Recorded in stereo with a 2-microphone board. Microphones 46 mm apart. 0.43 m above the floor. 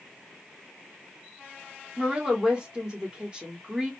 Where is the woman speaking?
20° right (ahead or behind), 1.1 m.